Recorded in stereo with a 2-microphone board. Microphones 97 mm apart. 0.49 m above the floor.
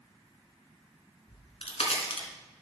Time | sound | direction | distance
1.3 | a crack | 80° left | 1.7 m